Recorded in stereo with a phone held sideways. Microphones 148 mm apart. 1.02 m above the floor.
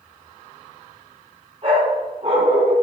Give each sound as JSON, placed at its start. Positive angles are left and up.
{"t": 1.6, "sound": "a dog barking", "side_deg": -40, "distance_m": 3.0}